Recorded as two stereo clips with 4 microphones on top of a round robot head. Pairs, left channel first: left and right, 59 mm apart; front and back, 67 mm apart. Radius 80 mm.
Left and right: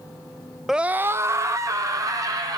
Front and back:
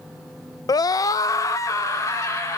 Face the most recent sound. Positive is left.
turn(degrees=-55)